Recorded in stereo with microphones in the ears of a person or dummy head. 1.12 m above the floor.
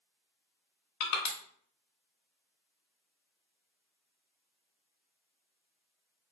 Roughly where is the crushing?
Left.